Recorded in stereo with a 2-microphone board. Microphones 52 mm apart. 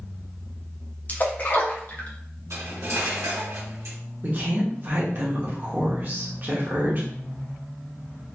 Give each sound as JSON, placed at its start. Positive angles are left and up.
{"t": 1.1, "sound": "a splash", "side_deg": 35, "distance_m": 0.8}
{"t": 2.5, "sound": "cutlery clinking", "side_deg": -75, "distance_m": 1.2}
{"t": 4.2, "sound": "a woman speaking", "side_deg": -40, "distance_m": 1.1}